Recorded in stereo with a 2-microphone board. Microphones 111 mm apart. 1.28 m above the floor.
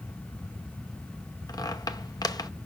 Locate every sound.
1.5 s a squeak: 35° left (ahead or behind), 0.7 m